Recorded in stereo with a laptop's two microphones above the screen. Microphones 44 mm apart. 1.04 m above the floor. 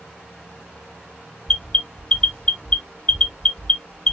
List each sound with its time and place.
1.5 s an alarm: 15° left (ahead or behind), 1.9 m